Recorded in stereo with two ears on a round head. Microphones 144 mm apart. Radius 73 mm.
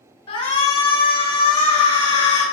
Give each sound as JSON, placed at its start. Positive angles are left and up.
{"t": 0.3, "sound": "a shout", "side_deg": 35, "distance_m": 1.7}